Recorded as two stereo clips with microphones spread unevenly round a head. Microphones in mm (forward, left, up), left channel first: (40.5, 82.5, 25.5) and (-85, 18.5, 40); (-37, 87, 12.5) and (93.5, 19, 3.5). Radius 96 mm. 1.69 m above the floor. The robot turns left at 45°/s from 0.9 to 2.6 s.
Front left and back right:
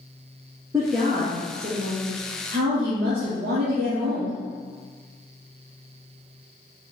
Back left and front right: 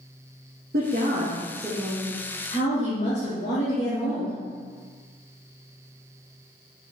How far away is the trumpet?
I don't hear a trumpet.